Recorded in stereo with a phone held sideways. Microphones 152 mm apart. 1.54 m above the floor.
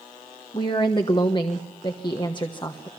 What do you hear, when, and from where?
0.5 s a woman speaking: 30° left (ahead or behind), 1.1 m